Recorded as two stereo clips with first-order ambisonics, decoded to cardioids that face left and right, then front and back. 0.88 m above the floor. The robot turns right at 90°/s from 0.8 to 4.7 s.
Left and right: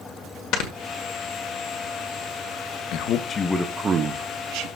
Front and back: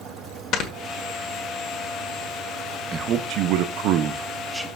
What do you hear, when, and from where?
0.5 s snoring: 50° left, 1.6 m
2.9 s a man speaking: 115° left, 0.7 m; by 4.7 s 90° right, 0.7 m